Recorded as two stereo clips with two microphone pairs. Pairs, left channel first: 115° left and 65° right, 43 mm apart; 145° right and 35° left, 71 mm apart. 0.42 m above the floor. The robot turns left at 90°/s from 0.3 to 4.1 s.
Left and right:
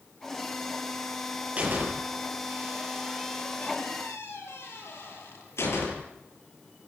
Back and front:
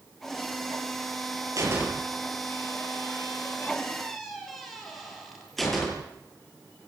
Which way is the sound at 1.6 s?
5° right.